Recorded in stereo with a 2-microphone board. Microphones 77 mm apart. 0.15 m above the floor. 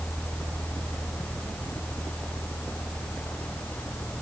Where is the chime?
No chime in this recording.